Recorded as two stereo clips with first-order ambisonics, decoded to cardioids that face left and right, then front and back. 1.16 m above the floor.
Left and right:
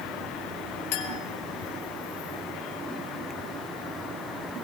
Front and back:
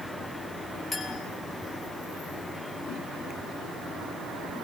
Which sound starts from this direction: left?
A clink, at 0.9 s.